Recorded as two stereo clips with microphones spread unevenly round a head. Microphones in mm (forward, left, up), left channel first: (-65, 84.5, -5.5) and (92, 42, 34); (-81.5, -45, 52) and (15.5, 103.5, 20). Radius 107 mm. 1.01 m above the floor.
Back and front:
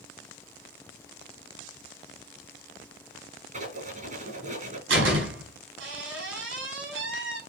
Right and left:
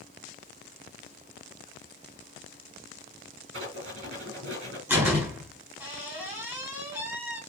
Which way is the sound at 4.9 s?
25° right.